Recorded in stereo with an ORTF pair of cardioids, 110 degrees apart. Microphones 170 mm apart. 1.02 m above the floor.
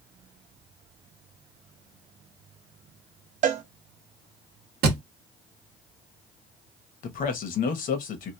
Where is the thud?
70° right, 0.9 m.